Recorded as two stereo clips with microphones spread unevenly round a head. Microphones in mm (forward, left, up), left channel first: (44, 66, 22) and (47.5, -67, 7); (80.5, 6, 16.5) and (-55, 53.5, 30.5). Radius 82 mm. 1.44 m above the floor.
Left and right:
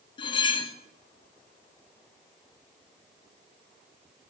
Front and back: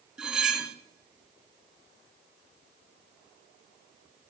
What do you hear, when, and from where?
0.2 s cutlery clinking: 80° left, 0.6 m